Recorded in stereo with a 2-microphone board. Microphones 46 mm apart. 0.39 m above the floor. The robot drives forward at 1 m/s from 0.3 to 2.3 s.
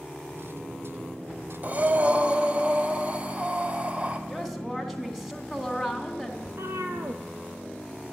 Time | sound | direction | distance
1.6 | breathing | 35° right (ahead or behind) | 1.3 m
4.3 | a woman speaking | 5° right (ahead or behind) | 3.5 m
6.5 | a cat meowing | 70° right (ahead or behind) | 1.4 m